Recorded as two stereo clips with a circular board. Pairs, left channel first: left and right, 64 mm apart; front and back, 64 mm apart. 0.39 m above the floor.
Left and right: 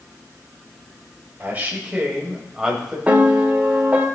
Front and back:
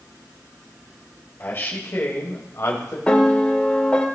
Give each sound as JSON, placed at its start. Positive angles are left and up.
{"t": 1.4, "sound": "a man speaking", "azimuth_deg": -40, "distance_m": 1.8}
{"t": 3.1, "sound": "a piano", "azimuth_deg": -50, "distance_m": 1.0}